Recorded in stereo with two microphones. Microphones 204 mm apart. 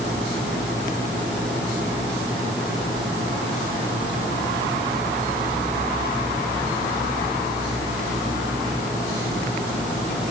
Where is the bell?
No bell in this recording.